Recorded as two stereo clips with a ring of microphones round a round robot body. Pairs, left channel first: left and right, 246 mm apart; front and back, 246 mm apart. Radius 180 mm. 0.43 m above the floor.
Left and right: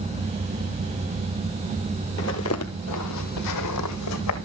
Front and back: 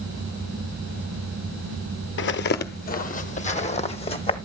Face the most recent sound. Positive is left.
turn(degrees=70)